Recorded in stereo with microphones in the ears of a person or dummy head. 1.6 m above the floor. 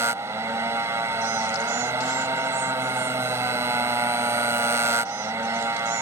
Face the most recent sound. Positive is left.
turn(degrees=-20)  # may be behind; listen again after turning